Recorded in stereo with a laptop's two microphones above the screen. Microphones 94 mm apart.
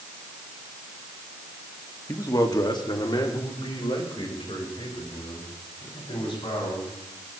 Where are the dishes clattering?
I don't hear dishes clattering.